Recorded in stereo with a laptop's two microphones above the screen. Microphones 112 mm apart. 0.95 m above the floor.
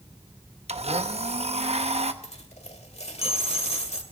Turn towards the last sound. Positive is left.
turn(degrees=75)  # may be behind; listen again after turning